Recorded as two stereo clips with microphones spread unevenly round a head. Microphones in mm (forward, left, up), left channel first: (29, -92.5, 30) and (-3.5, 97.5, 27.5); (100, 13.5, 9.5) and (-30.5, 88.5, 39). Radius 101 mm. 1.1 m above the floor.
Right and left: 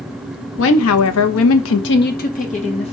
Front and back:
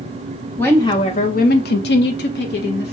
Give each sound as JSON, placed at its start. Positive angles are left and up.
{"t": 0.6, "sound": "a woman speaking", "azimuth_deg": -110, "distance_m": 0.6}